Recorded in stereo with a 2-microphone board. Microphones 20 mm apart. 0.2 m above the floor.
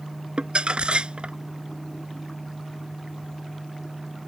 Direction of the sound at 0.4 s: 55° right (ahead or behind).